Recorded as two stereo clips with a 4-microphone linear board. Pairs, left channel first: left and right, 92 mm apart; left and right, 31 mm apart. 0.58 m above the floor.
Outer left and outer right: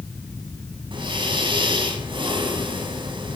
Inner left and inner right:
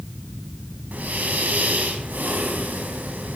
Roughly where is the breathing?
Right.